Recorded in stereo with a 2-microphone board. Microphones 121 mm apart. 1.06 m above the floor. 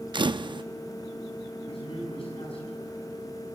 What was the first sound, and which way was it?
A camera shutter, 40° right (ahead or behind).